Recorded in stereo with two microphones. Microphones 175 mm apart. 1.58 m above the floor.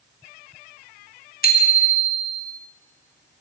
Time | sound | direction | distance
1.4 | a bicycle bell | 55° left (ahead or behind) | 2 m